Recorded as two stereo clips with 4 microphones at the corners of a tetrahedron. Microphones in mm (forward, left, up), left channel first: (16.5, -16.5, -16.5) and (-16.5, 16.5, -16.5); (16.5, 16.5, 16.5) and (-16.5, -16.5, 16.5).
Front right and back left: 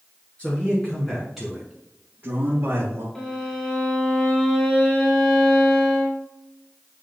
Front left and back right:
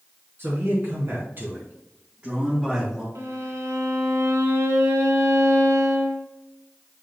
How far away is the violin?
About 1.4 m.